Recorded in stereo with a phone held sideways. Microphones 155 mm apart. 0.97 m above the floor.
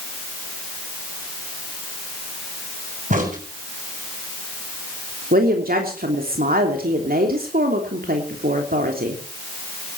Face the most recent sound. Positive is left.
turn(degrees=-70)  # may be behind; listen again after turning